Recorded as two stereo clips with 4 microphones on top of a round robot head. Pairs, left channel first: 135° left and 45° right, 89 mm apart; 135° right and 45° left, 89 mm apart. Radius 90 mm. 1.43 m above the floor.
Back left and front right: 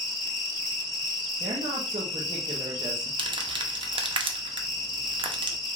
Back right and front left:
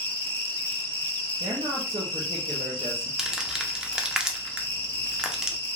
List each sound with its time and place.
0.0 s an insect: 160° left, 1.1 m
1.4 s a woman speaking: 5° right, 0.6 m
3.2 s crumpling: 35° right, 0.6 m